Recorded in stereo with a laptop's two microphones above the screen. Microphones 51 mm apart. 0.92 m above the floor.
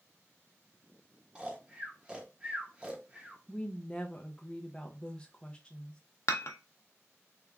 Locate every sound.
1.4 s snoring: 20° right (ahead or behind), 0.8 m
3.5 s a woman speaking: 20° left (ahead or behind), 0.5 m
6.3 s dishes clattering: 70° left (ahead or behind), 0.6 m